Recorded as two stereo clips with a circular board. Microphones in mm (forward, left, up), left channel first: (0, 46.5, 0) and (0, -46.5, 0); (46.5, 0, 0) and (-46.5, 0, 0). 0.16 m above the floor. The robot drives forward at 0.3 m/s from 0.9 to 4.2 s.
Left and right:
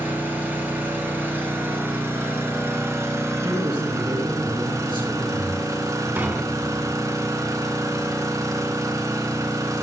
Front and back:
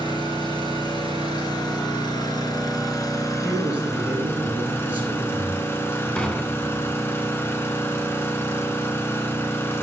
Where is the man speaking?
110° right, 3 m.